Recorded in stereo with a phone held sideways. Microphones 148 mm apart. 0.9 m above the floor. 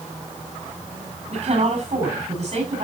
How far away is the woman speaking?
About 6.5 m.